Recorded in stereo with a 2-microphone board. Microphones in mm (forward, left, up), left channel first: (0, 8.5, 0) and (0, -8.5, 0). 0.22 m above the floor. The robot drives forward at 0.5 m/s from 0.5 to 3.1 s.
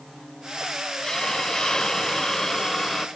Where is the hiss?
40° left (ahead or behind), 0.9 m; by 3.1 s 30° left (ahead or behind), 1.1 m.